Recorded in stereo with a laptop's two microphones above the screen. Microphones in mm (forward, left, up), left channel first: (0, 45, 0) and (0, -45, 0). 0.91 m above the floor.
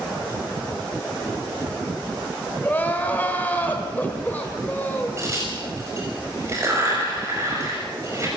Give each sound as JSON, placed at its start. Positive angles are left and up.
{"t": 2.6, "sound": "crying", "side_deg": 20, "distance_m": 2.5}
{"t": 5.2, "sound": "a crack", "side_deg": -30, "distance_m": 5.5}